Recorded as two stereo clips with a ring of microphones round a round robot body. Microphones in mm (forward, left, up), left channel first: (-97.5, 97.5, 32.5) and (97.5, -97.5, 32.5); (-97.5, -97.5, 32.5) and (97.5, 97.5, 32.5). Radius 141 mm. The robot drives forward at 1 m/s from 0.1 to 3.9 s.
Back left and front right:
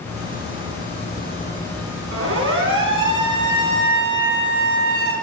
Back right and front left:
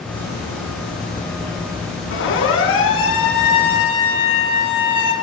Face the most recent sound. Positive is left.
turn(degrees=-90)